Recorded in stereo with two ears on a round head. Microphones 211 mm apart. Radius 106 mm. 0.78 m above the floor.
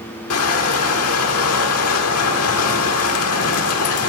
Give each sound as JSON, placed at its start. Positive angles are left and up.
{"t": 0.3, "sound": "crushing", "side_deg": 65, "distance_m": 1.6}